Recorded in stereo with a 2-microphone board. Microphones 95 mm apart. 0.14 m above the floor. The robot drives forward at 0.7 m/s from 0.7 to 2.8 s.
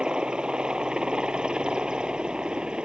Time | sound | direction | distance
0.0 | a helicopter | 10° right (ahead or behind) | ?